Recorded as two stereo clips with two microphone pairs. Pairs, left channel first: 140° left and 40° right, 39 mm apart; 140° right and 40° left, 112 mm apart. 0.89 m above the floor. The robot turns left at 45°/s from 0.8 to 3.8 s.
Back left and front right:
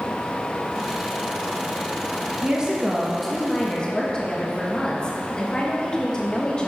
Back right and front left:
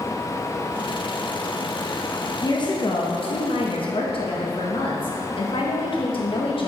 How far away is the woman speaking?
About 0.8 m.